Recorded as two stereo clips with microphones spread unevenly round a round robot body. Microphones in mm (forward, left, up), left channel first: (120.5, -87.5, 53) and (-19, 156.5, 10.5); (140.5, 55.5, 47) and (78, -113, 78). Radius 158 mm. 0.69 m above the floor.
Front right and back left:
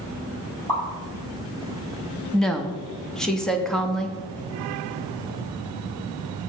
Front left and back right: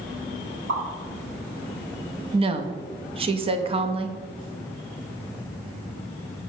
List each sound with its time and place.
0.7 s a pop: 145° right, 4 m
2.3 s a woman speaking: 160° right, 0.7 m